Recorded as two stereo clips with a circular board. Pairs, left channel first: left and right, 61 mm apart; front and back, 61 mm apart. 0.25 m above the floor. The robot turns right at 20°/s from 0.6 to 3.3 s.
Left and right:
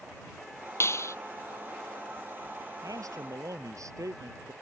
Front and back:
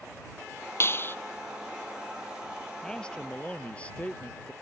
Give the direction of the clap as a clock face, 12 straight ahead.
10 o'clock.